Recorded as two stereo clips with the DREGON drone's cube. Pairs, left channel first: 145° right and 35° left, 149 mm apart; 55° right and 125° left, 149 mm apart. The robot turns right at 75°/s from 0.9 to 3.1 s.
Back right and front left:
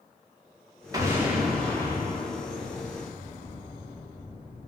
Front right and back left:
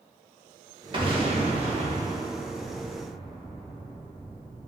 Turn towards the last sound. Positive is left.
turn(degrees=-110)